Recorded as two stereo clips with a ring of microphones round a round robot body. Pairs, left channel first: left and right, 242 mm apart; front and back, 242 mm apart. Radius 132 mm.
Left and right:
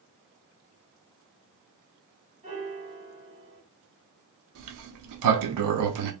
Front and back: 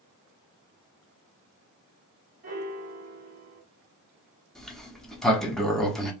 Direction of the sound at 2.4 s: 140° right.